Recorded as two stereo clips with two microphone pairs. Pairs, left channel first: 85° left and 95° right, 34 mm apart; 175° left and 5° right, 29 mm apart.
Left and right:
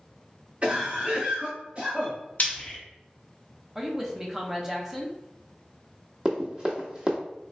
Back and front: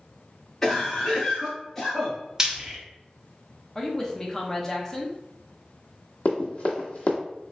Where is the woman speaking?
155° right, 0.6 m.